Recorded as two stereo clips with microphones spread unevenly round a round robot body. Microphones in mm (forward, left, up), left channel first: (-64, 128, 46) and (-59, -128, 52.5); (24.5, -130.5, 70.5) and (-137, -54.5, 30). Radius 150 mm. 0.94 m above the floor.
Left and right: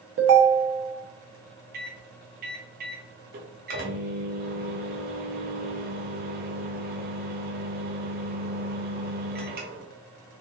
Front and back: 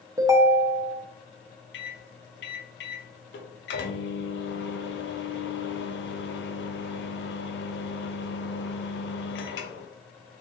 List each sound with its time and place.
0.2 s a ringtone: 130° right, 1.0 m
1.7 s a microwave: 35° right, 1.0 m